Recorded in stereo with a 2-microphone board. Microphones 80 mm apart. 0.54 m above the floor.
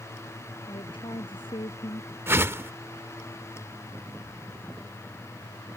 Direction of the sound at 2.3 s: 30° right (ahead or behind).